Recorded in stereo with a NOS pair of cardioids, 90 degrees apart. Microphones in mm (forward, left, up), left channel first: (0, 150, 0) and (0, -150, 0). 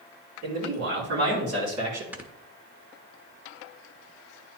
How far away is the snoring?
About 1.0 m.